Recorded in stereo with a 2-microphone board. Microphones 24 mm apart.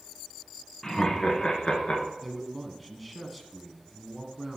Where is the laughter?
20° left (ahead or behind), 2.0 m; by 2.1 s 45° left (ahead or behind), 2.5 m.